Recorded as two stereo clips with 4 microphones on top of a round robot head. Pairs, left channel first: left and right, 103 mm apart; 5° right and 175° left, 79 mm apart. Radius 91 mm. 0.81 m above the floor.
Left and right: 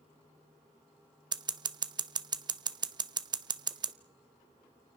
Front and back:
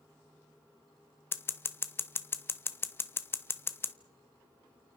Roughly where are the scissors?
Ahead right.